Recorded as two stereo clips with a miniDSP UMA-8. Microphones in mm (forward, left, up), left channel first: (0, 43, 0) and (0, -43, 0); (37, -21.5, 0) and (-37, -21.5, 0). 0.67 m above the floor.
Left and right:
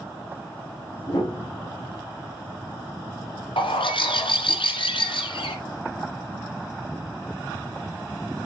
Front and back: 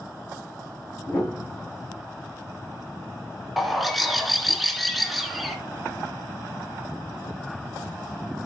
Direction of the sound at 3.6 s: 90° left.